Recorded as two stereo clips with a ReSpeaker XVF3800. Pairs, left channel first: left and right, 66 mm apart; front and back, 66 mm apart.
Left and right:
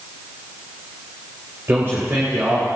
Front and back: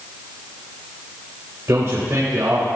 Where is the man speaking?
140° right, 3.5 m.